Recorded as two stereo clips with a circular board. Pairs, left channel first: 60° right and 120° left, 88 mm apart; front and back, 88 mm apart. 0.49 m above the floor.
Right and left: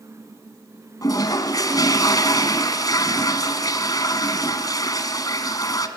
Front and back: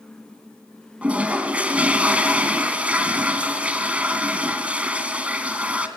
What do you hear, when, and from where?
1.0 s a toilet flushing: 105° right, 1.7 m